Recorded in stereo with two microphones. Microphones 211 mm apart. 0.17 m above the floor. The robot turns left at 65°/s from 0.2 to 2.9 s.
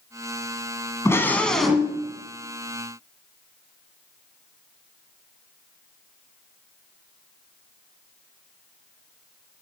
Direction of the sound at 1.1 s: 15° left (ahead or behind).